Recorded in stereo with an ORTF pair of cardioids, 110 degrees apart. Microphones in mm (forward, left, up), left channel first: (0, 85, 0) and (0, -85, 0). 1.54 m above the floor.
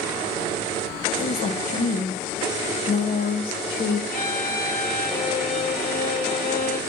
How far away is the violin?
About 1.8 m.